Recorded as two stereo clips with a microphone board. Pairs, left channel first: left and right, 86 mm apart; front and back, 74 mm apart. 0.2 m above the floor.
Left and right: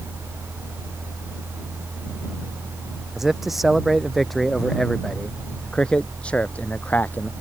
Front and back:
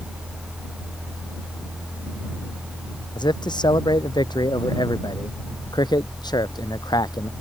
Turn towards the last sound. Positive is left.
turn(degrees=20)